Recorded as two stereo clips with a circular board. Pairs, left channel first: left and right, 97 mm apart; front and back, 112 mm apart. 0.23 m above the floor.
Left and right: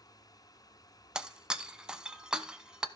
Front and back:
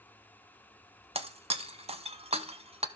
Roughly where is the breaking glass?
Behind.